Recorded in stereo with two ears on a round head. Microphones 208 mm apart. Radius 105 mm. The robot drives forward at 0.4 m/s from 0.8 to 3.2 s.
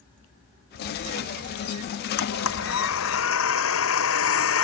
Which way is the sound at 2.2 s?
60° left (ahead or behind).